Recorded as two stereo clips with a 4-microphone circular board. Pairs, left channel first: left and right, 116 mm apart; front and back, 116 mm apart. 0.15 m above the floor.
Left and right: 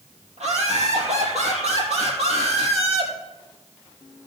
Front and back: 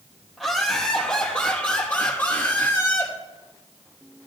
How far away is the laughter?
About 4.5 m.